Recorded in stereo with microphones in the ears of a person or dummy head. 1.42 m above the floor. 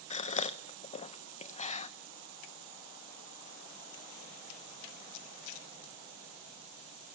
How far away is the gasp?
About 0.8 m.